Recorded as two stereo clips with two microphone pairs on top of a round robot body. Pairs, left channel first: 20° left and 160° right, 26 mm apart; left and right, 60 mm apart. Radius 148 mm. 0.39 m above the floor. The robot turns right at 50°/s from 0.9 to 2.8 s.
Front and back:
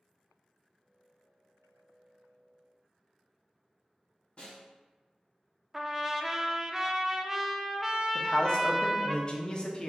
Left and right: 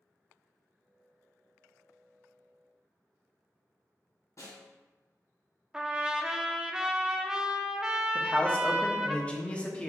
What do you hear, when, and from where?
4.4 s a snare drum: 65° left, 1.9 m
5.7 s a trumpet: 155° right, 0.7 m
8.2 s a man speaking: 50° left, 1.0 m